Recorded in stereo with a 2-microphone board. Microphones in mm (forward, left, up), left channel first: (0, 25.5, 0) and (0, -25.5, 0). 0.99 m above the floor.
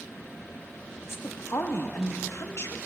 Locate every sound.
1.0 s a woman speaking: 55° left (ahead or behind), 1.1 m